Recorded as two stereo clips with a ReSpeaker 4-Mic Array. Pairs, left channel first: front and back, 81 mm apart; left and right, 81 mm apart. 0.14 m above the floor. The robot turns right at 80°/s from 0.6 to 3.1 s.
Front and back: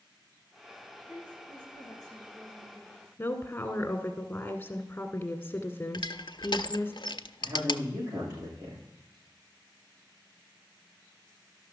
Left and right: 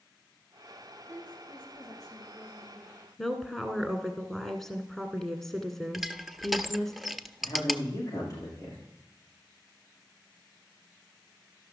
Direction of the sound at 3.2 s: 10° left.